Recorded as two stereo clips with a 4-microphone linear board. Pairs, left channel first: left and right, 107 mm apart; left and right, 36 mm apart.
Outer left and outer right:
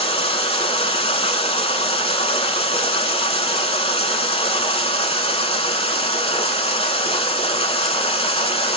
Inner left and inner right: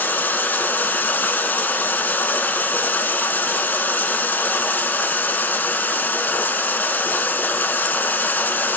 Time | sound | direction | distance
0.0 | running water | 65° left (ahead or behind) | 0.8 m